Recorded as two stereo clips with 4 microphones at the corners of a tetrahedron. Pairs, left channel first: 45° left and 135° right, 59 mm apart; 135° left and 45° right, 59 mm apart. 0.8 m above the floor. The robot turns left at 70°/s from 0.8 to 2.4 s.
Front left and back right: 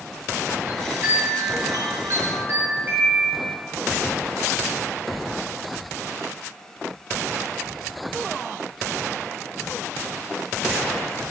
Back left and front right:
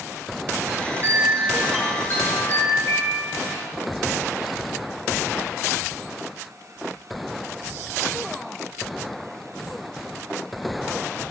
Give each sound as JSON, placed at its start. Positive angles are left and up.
{"t": 0.7, "sound": "a chime", "azimuth_deg": -80, "distance_m": 6.0}